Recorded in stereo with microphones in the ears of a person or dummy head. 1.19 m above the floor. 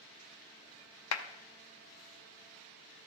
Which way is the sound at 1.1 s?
80° left.